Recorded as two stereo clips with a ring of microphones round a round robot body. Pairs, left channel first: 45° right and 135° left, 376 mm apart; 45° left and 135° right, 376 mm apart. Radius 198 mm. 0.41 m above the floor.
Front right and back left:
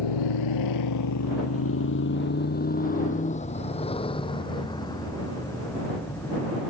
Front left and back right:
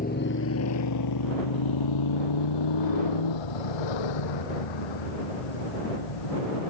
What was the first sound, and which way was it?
A motorcycle, 25° right.